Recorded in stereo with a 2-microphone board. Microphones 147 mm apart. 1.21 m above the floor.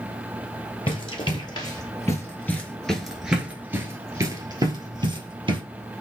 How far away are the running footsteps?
About 1.6 m.